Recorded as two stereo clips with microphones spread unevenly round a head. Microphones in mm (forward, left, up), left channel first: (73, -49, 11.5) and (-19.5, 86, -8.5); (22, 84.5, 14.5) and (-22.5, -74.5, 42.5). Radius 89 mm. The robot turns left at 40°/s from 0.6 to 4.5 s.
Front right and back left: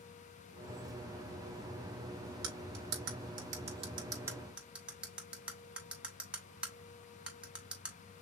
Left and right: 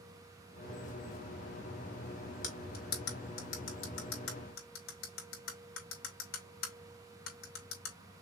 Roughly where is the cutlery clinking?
Behind left.